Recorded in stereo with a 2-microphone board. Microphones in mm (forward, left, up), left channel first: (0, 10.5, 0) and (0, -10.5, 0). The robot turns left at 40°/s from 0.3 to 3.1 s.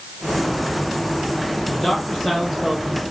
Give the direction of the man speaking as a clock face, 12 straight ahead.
11 o'clock.